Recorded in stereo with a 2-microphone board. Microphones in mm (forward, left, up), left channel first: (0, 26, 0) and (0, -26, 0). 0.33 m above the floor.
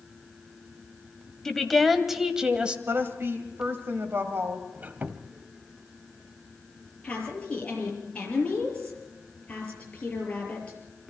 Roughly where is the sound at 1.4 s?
Centre.